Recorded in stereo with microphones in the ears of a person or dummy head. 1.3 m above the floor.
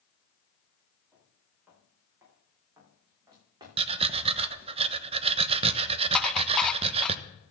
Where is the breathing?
35° right (ahead or behind), 0.8 m.